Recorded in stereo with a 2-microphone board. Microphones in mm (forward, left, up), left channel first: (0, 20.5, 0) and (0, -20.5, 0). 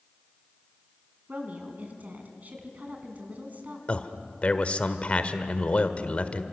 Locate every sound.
1.3 s a woman speaking: 40° right (ahead or behind), 4 m
3.9 s a man speaking: 35° left (ahead or behind), 1.4 m